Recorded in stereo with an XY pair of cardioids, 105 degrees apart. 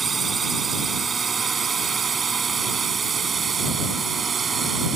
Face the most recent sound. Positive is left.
turn(degrees=-40)